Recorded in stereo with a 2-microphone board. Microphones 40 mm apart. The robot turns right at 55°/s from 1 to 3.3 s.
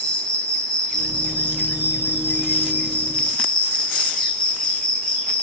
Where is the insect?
30° left, 1.4 m; by 5.4 s 160° left, 1.4 m.